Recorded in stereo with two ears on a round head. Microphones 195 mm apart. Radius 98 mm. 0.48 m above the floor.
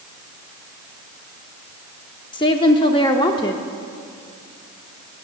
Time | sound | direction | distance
2.3 | a woman speaking | 20° left (ahead or behind) | 0.7 m